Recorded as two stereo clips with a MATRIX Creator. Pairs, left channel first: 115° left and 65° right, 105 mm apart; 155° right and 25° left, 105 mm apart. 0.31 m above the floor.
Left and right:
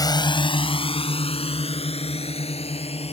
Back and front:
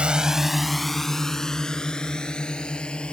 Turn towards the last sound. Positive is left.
turn(degrees=120)